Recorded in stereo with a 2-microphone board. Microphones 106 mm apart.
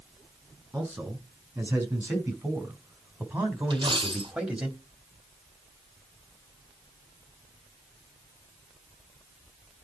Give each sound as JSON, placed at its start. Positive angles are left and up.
{"t": 0.7, "sound": "a man speaking", "side_deg": -20, "distance_m": 6.5}
{"t": 3.7, "sound": "a dropped coin", "side_deg": -50, "distance_m": 1.3}